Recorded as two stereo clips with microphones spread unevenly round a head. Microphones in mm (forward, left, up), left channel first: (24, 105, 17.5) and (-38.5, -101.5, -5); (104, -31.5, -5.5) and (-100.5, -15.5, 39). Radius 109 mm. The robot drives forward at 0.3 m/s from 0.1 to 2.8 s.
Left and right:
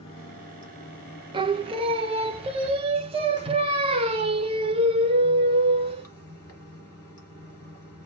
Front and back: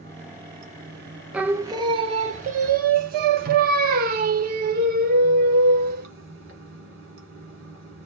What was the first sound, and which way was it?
Running water, 130° left.